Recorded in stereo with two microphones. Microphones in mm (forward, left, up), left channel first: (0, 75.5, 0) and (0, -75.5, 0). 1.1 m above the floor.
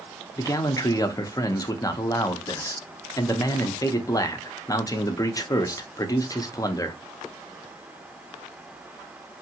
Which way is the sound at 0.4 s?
25° left (ahead or behind).